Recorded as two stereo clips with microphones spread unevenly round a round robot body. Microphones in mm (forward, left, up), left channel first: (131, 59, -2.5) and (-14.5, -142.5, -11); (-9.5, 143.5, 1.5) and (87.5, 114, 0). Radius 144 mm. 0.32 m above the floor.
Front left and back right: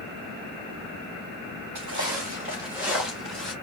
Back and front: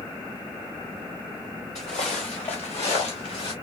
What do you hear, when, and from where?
1.8 s footsteps: 170° right, 1.6 m; by 3.5 s 140° left, 3 m